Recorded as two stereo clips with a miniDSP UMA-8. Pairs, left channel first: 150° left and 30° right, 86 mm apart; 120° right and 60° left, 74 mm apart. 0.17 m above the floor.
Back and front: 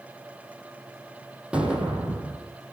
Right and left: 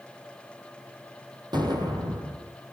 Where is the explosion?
45° left, 6 m.